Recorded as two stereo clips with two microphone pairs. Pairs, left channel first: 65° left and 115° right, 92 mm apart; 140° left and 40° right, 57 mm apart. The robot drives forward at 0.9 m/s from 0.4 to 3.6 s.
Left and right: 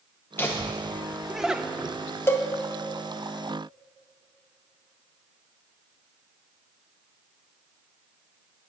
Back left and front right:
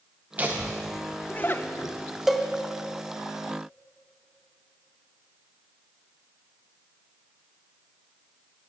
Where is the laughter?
5° left, 0.8 m; by 1.9 s 175° left, 0.9 m.